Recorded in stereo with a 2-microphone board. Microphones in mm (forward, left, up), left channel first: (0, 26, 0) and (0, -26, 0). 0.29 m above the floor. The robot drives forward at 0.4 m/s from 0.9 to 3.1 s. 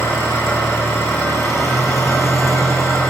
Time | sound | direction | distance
0.0 | an engine running | 65° left (ahead or behind) | 7.5 m